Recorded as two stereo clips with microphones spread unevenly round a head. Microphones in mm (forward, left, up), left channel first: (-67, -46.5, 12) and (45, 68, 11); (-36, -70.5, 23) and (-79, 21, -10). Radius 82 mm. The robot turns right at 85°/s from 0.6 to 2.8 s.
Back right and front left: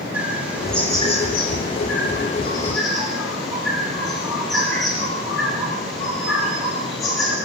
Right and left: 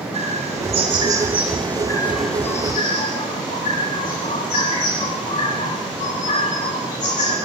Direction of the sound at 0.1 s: 130° left.